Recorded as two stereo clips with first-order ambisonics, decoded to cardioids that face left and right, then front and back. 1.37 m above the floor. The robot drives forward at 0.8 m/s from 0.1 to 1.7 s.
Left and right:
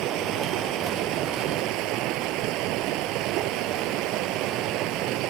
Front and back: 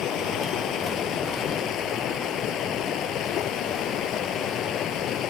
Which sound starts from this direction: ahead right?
Running water, at 0.0 s.